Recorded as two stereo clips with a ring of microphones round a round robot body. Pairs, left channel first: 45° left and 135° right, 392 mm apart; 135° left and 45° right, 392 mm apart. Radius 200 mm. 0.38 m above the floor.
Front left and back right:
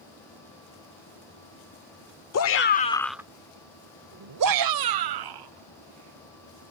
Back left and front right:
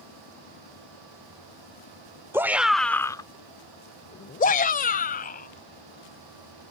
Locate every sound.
2.3 s a shout: 35° left; by 6.7 s 155° right